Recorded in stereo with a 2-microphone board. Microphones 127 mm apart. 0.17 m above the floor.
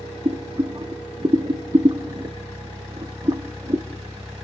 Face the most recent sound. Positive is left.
turn(degrees=-40)  # may be behind; listen again after turning